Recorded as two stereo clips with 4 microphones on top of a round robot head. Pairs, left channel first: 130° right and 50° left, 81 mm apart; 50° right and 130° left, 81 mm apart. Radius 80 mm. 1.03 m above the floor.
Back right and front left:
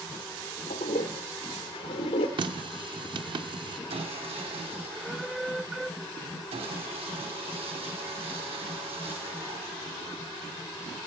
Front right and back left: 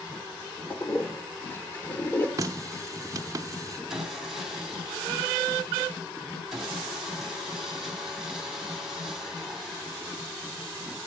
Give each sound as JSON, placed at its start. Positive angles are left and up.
{"t": 0.7, "sound": "a toilet flushing", "azimuth_deg": -115, "distance_m": 1.0}
{"t": 2.4, "sound": "a running tap", "azimuth_deg": 80, "distance_m": 0.6}
{"t": 3.9, "sound": "sawing", "azimuth_deg": 45, "distance_m": 2.5}